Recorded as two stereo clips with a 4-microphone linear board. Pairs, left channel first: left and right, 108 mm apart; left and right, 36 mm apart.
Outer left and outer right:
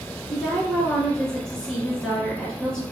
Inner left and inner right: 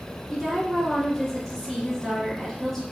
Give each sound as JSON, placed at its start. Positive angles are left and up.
{"t": 0.3, "sound": "a woman speaking", "side_deg": 5, "distance_m": 1.8}